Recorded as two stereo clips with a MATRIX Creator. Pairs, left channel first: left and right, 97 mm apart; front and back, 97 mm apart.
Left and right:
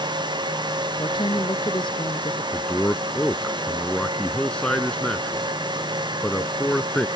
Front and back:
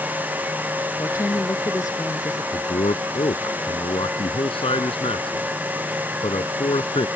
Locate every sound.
1.0 s a woman speaking: 55° left
2.5 s a man speaking: 10° left